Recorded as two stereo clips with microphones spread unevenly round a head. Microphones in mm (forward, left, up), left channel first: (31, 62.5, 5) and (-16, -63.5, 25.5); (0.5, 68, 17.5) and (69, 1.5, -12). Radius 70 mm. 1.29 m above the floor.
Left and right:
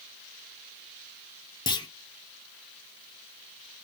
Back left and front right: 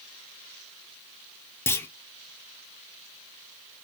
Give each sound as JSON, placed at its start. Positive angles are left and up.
{"t": 1.7, "sound": "a clunk", "azimuth_deg": 60, "distance_m": 0.5}